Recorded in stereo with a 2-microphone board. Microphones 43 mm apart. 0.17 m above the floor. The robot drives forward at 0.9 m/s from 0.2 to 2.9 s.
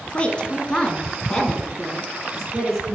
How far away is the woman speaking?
About 1.3 m.